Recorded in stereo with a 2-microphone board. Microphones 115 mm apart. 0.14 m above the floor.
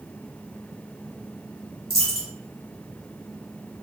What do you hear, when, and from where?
1.9 s a dropped coin: centre (ahead or behind), 1.5 m